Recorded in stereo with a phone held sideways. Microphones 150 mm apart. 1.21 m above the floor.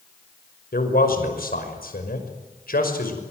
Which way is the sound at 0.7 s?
80° left.